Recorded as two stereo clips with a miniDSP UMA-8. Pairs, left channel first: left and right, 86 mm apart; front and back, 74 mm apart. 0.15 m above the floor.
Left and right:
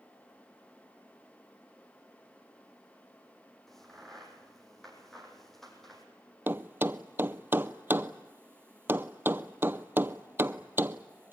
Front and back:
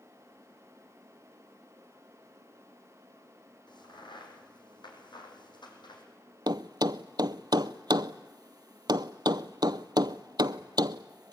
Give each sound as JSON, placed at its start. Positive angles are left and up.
{"t": 3.7, "sound": "a crack", "azimuth_deg": 5, "distance_m": 4.5}
{"t": 6.5, "sound": "a thud", "azimuth_deg": -155, "distance_m": 0.6}